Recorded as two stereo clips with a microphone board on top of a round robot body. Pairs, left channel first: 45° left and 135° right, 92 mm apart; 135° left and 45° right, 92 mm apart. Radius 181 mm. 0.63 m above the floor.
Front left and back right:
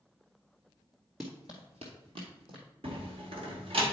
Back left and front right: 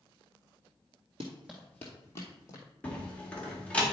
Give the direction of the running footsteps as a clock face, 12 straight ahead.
1 o'clock.